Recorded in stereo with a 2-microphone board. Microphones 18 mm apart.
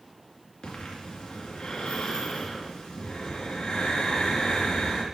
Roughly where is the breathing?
Left.